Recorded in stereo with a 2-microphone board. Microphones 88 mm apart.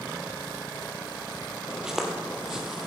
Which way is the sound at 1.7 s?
5° right (ahead or behind).